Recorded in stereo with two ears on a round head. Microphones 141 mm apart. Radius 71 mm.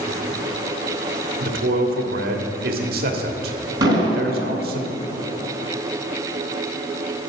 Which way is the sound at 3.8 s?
25° right (ahead or behind).